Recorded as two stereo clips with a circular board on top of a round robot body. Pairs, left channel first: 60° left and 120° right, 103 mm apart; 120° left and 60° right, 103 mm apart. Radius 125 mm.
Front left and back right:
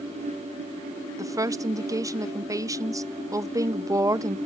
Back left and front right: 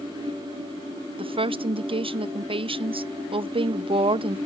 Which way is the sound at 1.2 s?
70° right.